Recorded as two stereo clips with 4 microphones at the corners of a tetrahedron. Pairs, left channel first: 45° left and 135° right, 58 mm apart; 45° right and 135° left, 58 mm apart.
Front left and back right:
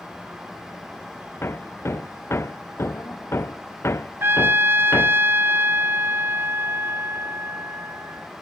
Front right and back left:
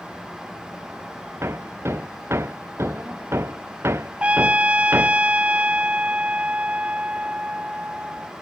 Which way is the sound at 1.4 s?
90° left.